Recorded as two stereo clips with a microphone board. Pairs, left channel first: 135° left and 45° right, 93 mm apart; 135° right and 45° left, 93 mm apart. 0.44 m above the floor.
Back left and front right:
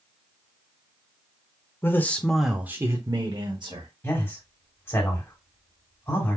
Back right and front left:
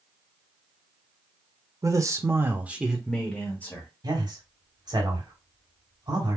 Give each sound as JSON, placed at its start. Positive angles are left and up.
{"t": 1.8, "sound": "a man speaking", "azimuth_deg": 80, "distance_m": 1.1}
{"t": 4.0, "sound": "a man speaking", "azimuth_deg": 75, "distance_m": 2.5}